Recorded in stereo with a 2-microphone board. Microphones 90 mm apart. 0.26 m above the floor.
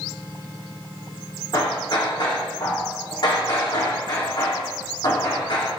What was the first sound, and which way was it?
Hammering, 55° left (ahead or behind).